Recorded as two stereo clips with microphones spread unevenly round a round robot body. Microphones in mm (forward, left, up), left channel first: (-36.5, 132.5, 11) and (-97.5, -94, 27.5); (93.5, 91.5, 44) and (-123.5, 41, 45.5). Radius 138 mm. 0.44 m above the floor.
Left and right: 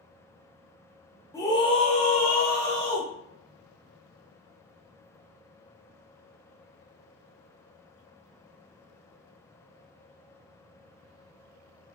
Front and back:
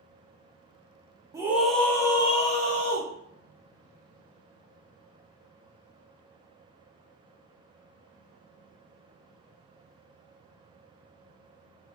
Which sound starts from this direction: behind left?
A scream, at 1.3 s.